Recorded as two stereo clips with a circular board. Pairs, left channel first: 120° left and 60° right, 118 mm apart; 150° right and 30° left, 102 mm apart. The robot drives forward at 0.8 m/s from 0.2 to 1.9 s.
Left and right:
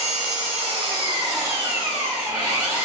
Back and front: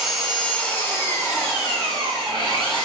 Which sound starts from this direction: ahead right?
An engine running, at 0.0 s.